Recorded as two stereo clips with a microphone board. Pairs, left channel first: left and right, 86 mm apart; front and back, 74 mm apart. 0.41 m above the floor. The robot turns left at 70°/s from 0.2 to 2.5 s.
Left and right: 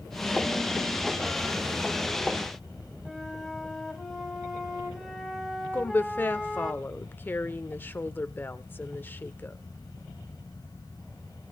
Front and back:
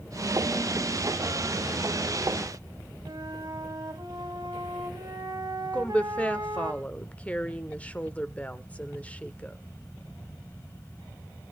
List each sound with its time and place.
3.0 s a flute: 175° right, 2.0 m
5.7 s a woman speaking: 50° left, 0.8 m